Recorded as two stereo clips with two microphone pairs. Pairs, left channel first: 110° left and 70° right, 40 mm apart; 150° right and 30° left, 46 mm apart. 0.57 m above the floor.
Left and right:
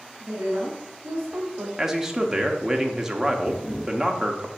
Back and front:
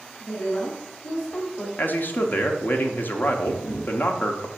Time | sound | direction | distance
0.2 | a woman speaking | 100° right | 2.5 m
1.8 | a man speaking | 145° right | 0.8 m
3.5 | a camera shutter | 160° right | 1.5 m